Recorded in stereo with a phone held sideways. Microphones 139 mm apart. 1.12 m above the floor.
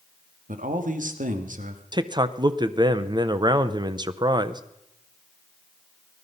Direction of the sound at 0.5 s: 70° right (ahead or behind).